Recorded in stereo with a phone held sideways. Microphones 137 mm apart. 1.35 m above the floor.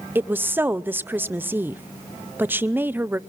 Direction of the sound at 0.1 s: 15° right (ahead or behind).